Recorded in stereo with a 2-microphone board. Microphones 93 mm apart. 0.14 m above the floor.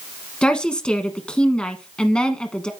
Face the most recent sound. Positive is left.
turn(degrees=10)  # may be behind; listen again after turning